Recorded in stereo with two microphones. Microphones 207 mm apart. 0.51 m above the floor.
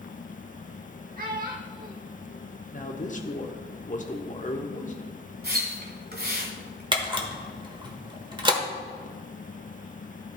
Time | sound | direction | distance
1.2 | a child speaking | 45° right (ahead or behind) | 0.8 m
2.7 | a man speaking | 40° left (ahead or behind) | 0.9 m
5.4 | a splash | 50° right (ahead or behind) | 1.9 m
6.9 | a camera shutter | 25° right (ahead or behind) | 1.2 m